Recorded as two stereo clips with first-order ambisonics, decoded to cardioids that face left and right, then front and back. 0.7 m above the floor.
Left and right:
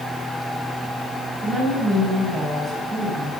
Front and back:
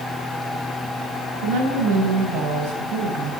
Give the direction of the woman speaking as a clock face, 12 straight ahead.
5 o'clock.